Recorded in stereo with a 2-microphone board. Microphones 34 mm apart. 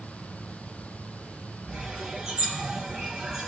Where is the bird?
25° right (ahead or behind), 5.5 m.